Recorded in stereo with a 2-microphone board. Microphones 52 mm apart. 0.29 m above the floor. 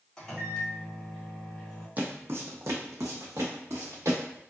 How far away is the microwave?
About 1.1 m.